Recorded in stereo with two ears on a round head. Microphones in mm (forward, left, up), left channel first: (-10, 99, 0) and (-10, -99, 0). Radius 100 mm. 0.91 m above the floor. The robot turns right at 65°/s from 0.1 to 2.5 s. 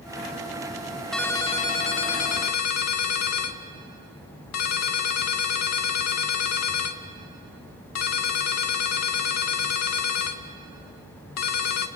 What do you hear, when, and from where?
1.1 s a ringtone: straight ahead, 1.0 m; by 11.9 s 90° left, 1.0 m